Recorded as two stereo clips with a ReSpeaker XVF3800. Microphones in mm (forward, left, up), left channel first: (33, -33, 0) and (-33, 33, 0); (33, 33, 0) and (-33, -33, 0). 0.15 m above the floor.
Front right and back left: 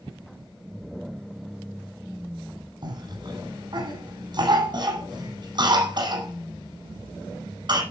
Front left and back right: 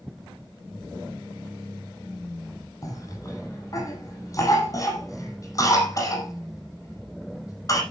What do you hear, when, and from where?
2.8 s a cough: 100° left, 7.5 m